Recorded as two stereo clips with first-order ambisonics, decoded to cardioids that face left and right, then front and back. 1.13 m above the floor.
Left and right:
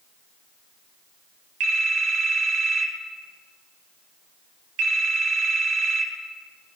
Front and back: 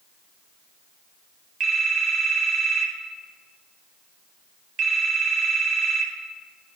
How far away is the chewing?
No chewing in this recording.